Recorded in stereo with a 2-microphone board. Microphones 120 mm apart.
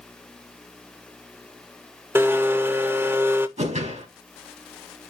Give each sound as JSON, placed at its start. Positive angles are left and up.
{"t": 2.1, "sound": "a blender", "side_deg": -20, "distance_m": 0.6}
{"t": 3.6, "sound": "a whoosh", "side_deg": -80, "distance_m": 3.5}